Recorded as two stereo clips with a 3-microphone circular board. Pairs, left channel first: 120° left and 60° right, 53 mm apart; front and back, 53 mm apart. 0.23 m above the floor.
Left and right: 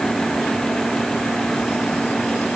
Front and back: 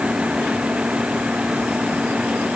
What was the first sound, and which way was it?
Only background noise.